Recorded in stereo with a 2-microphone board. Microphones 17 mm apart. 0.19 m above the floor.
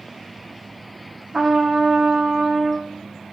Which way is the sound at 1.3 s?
80° right.